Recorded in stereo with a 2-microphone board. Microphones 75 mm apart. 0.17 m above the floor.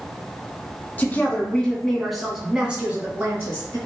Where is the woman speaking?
25° left (ahead or behind), 1.3 m; by 3.8 s 40° right (ahead or behind), 1.3 m.